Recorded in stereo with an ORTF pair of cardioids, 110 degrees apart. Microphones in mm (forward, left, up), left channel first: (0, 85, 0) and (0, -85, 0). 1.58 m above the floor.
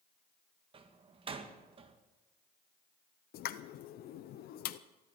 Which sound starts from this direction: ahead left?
A pop, at 3.3 s.